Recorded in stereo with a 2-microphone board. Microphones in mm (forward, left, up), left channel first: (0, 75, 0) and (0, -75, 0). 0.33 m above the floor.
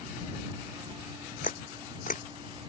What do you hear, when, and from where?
1.4 s a camera shutter: 55° left (ahead or behind)